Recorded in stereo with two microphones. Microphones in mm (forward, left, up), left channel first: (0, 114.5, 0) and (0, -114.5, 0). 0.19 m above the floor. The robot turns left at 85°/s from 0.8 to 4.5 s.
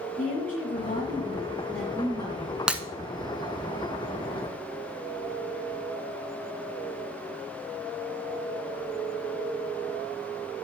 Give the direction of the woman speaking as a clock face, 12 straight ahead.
9 o'clock.